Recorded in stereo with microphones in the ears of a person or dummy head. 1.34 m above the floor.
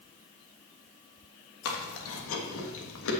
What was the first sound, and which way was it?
Chewing, 80° left.